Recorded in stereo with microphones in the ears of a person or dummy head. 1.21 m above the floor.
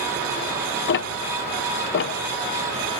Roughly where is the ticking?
Left.